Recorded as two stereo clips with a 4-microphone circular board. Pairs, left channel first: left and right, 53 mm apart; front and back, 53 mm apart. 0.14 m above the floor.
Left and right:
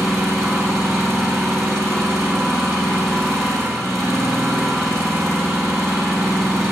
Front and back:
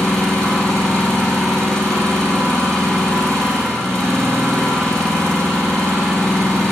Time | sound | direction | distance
0.0 | an engine running | 80° right | 3.5 m